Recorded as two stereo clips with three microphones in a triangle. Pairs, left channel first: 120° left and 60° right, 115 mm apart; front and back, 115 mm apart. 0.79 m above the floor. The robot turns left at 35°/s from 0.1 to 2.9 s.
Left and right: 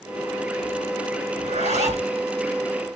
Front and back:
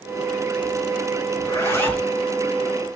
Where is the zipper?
60° right, 4.5 m; by 2.1 s 85° right, 4.5 m.